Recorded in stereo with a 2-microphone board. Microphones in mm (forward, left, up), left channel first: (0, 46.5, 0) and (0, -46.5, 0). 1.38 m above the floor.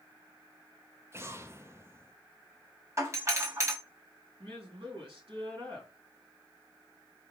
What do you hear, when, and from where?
1.1 s an explosion: 30° right (ahead or behind), 0.5 m
3.0 s a doorbell: 35° right (ahead or behind), 1.3 m
4.4 s a woman speaking: 80° right, 3 m